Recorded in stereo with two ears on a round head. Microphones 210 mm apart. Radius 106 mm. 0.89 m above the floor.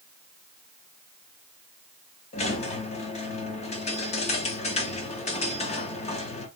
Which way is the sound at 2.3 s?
30° left (ahead or behind).